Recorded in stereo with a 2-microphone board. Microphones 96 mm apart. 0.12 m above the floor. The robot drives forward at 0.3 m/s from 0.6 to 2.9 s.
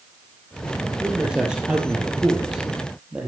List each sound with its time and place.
1.0 s a man speaking: 10° right (ahead or behind), 3.5 m